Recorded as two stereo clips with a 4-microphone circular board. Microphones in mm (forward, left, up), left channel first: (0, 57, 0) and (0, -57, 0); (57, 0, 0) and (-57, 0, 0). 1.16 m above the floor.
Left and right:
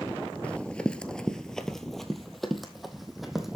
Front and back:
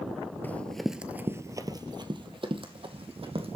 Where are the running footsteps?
35° left, 1.2 m; by 3.6 s straight behind, 3 m.